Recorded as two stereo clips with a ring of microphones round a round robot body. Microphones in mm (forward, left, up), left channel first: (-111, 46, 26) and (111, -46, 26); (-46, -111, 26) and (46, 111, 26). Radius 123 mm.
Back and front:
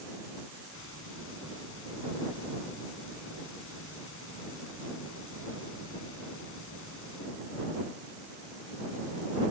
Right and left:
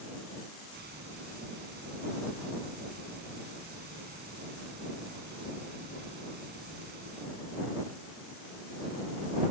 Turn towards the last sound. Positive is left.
turn(degrees=120)